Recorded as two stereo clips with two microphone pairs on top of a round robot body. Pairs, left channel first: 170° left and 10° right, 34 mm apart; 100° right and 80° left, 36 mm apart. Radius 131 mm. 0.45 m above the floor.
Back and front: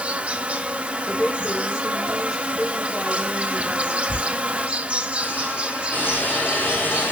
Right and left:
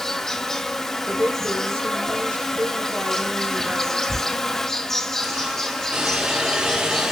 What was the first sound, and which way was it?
An insect, 30° right.